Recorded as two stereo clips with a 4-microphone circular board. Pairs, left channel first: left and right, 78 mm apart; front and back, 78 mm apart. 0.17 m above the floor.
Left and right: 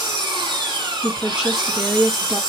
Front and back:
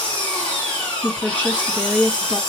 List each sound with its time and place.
0.0 s an engine running: 80° right, 4 m
1.0 s a woman speaking: 25° right, 1.5 m